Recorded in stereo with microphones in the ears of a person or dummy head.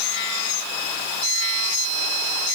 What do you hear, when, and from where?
Only background noise.